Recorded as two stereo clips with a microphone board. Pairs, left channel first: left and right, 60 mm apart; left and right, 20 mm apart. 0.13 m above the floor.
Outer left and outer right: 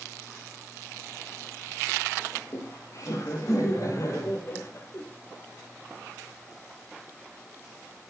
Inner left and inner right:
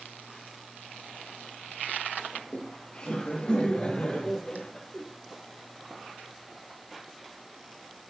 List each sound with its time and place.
2.3 s laughter: 65° left (ahead or behind), 6 m; by 5.0 s 55° left (ahead or behind), 4.5 m